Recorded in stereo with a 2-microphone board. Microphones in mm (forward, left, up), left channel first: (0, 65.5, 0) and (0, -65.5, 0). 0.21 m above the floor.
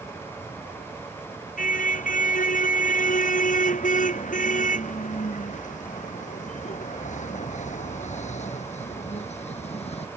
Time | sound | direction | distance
1.6 | a car horn | 75° left (ahead or behind) | ?